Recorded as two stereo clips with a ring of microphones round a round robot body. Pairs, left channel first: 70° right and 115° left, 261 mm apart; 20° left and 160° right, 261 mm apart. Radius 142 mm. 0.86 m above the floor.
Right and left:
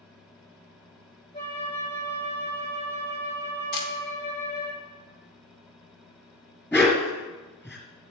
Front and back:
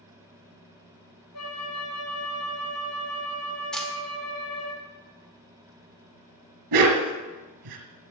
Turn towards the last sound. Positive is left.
turn(degrees=-150)